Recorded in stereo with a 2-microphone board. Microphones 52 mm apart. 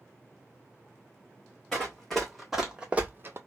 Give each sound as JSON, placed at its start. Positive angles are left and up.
{"t": 1.7, "sound": "running footsteps", "side_deg": 10, "distance_m": 1.1}